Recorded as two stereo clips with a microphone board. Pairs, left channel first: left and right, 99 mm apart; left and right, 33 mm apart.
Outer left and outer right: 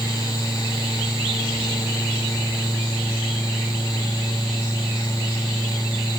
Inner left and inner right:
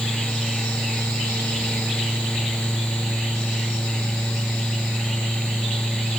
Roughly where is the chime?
I don't hear a chime.